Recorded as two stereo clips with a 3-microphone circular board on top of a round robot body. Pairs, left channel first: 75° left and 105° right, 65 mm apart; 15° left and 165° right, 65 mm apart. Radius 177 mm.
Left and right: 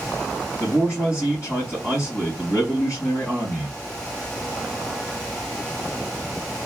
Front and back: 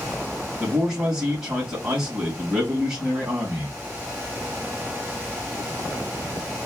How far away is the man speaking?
About 3 m.